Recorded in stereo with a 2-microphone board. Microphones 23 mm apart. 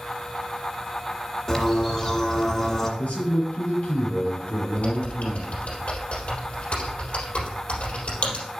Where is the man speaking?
70° left (ahead or behind), 3 m.